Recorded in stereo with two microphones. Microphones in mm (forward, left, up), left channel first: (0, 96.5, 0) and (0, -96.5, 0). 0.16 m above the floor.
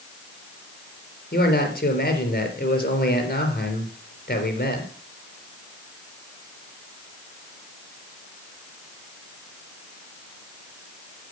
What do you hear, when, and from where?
1.3 s a man speaking: 50° left (ahead or behind), 3.5 m